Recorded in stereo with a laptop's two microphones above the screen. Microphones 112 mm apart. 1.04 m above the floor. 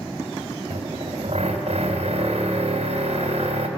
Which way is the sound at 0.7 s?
70° right (ahead or behind).